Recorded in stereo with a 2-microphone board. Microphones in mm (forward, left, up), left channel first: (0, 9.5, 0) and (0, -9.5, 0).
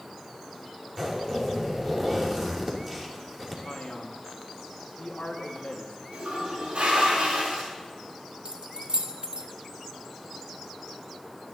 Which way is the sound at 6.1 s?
70° right (ahead or behind).